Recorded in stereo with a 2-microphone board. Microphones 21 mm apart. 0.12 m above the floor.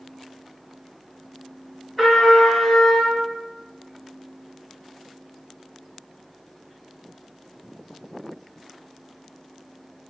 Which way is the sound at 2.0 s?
10° right (ahead or behind).